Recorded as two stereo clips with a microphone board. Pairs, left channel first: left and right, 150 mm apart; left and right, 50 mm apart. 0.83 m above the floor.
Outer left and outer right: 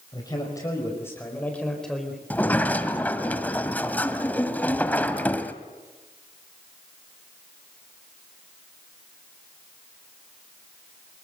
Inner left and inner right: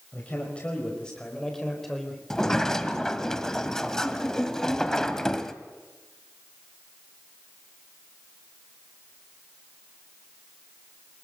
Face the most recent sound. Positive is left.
turn(degrees=10)  # may be behind; listen again after turning